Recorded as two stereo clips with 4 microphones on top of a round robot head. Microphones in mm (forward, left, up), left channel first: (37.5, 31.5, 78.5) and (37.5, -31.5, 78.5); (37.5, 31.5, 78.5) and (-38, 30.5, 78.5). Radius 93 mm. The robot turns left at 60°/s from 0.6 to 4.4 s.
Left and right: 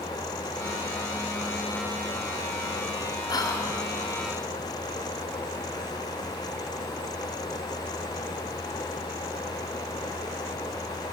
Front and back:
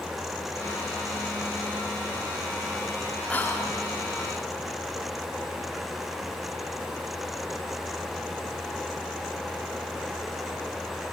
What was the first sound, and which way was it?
Whispering, 75° left.